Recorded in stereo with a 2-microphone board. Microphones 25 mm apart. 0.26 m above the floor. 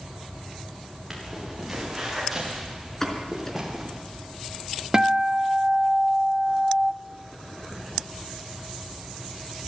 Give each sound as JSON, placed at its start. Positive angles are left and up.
{"t": 1.1, "sound": "footsteps", "side_deg": -10, "distance_m": 9.5}
{"t": 3.0, "sound": "a pop", "side_deg": 15, "distance_m": 4.0}
{"t": 4.9, "sound": "a guitar", "side_deg": -25, "distance_m": 0.7}